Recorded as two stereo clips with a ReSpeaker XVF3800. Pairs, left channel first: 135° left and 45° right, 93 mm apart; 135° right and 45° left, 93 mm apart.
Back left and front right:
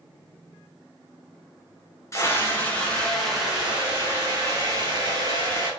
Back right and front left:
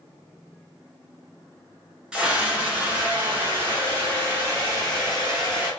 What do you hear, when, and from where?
2.1 s a scream: 115° left, 1.4 m; by 5.7 s 15° right, 2 m